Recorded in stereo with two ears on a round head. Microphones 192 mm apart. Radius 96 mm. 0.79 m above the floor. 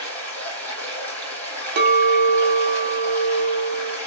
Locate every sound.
0.0 s running water: 10° left (ahead or behind), 3 m
1.8 s a clink: 50° right (ahead or behind), 0.7 m